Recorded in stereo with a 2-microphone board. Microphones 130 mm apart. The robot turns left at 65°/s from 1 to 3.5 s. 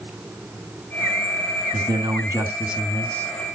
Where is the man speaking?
105° right, 1.4 m; by 3.3 s 155° left, 1.4 m.